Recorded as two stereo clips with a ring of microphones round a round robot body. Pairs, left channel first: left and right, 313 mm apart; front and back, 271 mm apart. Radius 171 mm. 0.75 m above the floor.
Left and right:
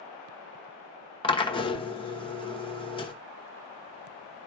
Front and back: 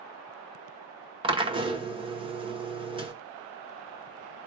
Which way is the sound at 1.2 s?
140° left.